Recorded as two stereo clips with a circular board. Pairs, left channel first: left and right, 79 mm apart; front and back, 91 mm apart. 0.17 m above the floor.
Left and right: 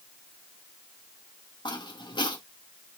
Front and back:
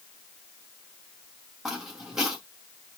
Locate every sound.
1.6 s footsteps: 95° left, 4 m